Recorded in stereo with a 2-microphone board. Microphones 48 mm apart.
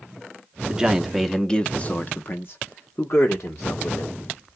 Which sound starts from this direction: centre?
A man speaking, at 0.7 s.